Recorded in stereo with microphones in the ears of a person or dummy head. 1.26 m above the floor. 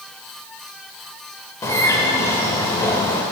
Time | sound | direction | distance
1.6 | a bird | 20° left (ahead or behind) | 2.5 m